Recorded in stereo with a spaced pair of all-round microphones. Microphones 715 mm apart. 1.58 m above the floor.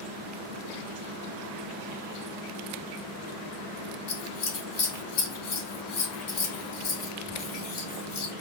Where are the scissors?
85° left, 1.0 m.